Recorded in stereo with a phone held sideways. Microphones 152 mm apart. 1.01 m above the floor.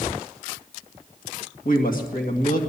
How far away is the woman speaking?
About 1.7 m.